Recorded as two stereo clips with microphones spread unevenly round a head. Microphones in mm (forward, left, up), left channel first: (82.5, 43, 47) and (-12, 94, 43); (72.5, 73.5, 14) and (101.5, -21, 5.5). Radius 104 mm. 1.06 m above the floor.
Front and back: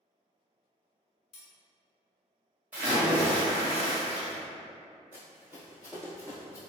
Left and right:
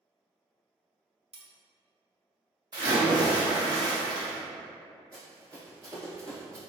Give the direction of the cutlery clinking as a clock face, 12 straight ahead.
1 o'clock.